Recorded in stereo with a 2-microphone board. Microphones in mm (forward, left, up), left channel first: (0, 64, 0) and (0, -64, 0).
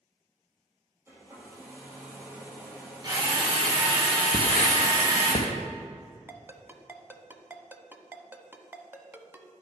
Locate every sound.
1.1 s a hair dryer: 20° right (ahead or behind), 3 m
3.0 s a drill: 35° right (ahead or behind), 2.5 m
4.3 s writing: 75° left (ahead or behind), 1.4 m
6.3 s a ringtone: 15° right (ahead or behind), 0.7 m